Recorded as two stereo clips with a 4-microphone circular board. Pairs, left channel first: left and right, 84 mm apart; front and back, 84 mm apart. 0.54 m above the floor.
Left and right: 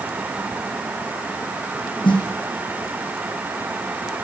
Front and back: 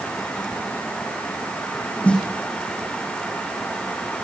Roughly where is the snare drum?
Left.